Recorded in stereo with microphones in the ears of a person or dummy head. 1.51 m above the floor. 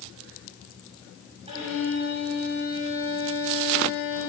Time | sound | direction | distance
1.5 | a violin | 30° right (ahead or behind) | 5.5 m